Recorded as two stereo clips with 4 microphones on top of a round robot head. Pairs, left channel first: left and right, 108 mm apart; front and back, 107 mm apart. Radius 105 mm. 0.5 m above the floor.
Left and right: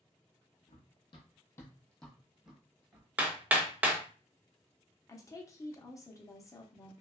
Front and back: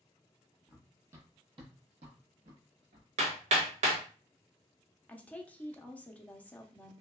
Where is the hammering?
170° right, 0.7 m.